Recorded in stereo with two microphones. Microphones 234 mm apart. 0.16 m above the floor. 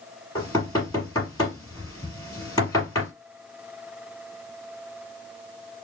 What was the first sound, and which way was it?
Knocking, 20° left (ahead or behind).